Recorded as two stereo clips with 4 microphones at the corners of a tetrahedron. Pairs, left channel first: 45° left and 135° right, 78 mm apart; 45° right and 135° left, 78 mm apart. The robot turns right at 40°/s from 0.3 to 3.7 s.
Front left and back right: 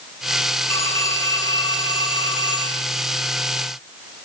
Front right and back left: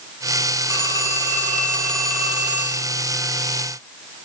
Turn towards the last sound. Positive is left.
turn(degrees=110)